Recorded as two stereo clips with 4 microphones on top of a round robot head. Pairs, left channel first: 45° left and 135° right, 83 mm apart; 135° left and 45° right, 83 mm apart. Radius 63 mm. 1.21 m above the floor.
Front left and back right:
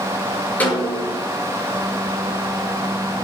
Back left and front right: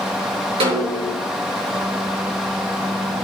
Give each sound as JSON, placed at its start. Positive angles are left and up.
{"t": 0.6, "sound": "a snare drum", "azimuth_deg": -25, "distance_m": 6.0}